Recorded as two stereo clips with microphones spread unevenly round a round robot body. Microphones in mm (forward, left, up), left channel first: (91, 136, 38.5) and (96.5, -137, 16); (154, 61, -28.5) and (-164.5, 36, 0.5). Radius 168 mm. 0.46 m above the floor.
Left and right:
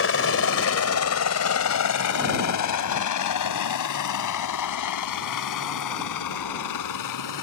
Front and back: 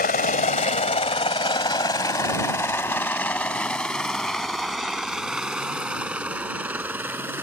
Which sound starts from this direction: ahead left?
A helicopter, at 0.0 s.